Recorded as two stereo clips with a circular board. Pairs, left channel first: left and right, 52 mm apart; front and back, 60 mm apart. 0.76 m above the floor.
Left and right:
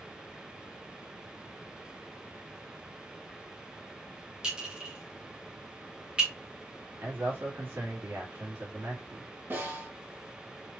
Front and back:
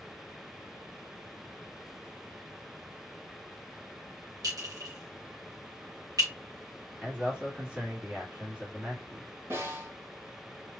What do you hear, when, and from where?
4.4 s a clink: 160° right, 2.5 m
7.0 s a man speaking: 110° right, 1.9 m
9.5 s a snare drum: 130° right, 3 m